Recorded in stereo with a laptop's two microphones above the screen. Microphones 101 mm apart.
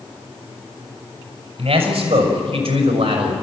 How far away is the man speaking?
About 5.5 m.